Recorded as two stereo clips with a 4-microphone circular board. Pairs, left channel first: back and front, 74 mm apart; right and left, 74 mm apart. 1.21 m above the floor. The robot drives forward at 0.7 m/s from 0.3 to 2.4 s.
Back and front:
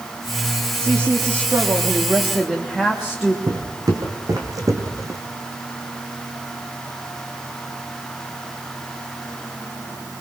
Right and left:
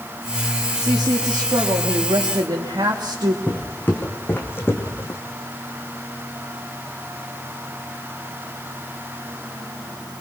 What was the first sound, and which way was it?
A woman speaking, 55° left.